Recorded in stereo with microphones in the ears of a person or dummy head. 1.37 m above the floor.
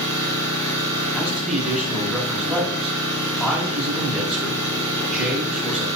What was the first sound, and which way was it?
An engine running, 30° right (ahead or behind).